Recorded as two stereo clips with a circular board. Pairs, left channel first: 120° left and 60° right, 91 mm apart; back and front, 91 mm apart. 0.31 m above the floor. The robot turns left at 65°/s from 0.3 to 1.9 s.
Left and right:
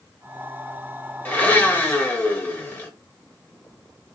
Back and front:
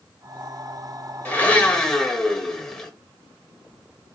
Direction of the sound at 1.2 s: 145° left.